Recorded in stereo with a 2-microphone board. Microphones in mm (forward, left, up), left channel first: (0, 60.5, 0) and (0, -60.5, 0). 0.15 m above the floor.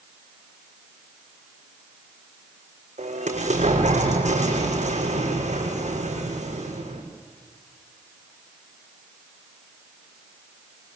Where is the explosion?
75° right (ahead or behind), 6.5 m.